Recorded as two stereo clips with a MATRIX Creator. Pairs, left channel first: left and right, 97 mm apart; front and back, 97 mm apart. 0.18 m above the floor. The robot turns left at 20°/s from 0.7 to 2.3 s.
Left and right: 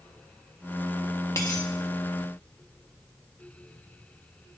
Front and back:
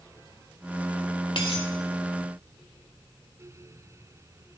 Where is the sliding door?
I don't hear a sliding door.